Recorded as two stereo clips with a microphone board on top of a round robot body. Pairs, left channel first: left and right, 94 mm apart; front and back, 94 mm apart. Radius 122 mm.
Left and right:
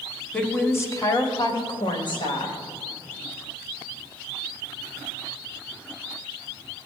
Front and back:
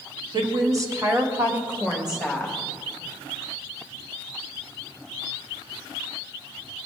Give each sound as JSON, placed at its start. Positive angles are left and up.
{"t": 0.3, "sound": "a woman speaking", "azimuth_deg": 160, "distance_m": 1.3}